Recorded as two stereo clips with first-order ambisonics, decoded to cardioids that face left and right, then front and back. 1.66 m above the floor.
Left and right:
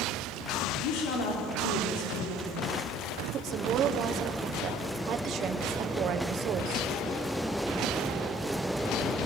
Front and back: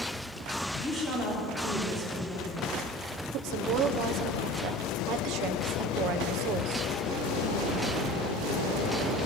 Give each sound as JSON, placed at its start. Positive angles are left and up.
{"t": 0.8, "sound": "a woman speaking", "azimuth_deg": 85, "distance_m": 4.0}
{"t": 3.3, "sound": "a woman speaking", "azimuth_deg": -140, "distance_m": 1.2}